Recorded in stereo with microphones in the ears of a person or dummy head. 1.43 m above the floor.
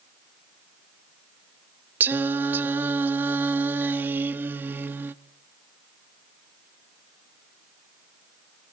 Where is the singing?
15° right (ahead or behind), 0.5 m.